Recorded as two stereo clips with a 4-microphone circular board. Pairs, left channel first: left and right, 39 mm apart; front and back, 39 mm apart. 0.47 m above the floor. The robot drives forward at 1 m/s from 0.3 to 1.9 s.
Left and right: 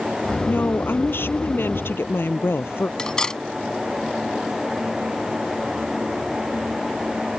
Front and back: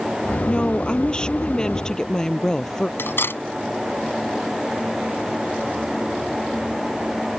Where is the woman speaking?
65° left; by 2.9 s 75° left.